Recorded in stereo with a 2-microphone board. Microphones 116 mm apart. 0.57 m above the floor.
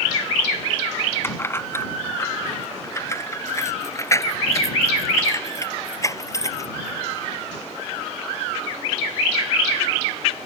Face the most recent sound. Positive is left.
turn(degrees=25)  # may be behind; listen again after turning